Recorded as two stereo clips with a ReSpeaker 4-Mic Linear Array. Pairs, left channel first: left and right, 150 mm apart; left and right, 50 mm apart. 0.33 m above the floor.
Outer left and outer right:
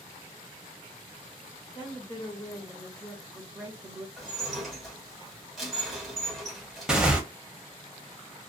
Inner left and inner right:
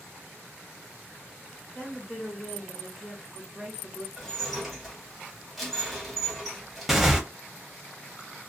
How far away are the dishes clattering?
About 1.4 m.